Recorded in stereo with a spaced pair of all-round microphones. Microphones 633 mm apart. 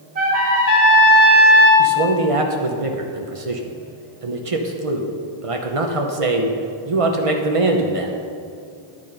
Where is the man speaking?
55° right (ahead or behind), 1.0 m.